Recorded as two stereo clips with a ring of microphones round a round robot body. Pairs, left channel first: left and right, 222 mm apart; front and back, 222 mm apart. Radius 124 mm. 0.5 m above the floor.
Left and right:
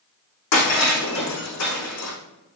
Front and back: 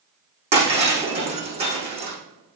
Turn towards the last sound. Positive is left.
turn(degrees=115)